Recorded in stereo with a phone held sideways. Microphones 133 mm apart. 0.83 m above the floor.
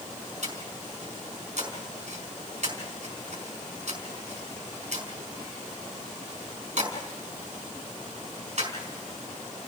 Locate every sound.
0.4 s breathing: 60° right (ahead or behind), 4.5 m